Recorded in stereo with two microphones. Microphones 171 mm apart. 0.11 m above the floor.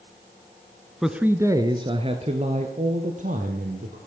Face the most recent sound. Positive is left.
turn(degrees=-55)  # may be behind; listen again after turning